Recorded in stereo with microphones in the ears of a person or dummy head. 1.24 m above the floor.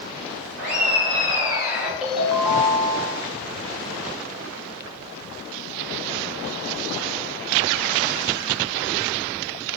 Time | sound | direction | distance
0.6 | laughter | 50° right (ahead or behind) | 1.2 m
2.0 | a ringtone | 5° right (ahead or behind) | 0.7 m